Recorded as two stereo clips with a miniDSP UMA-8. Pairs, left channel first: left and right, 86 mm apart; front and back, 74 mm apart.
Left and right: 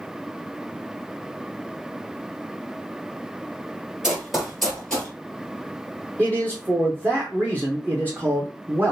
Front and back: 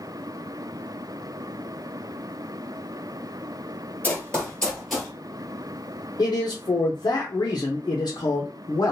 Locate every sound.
4.0 s running footsteps: 25° right, 1.4 m; by 5.1 s 110° left, 1.3 m
6.2 s a man speaking: 25° right, 0.7 m